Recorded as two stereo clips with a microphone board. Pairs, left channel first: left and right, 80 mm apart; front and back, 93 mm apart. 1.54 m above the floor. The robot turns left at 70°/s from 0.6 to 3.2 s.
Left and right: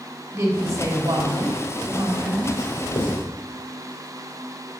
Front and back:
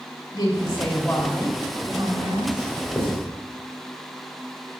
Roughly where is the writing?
Left.